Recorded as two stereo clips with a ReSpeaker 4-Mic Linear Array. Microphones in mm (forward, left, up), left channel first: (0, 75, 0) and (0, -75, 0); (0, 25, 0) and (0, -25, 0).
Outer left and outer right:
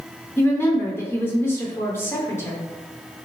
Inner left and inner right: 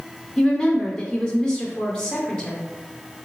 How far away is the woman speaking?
About 0.7 m.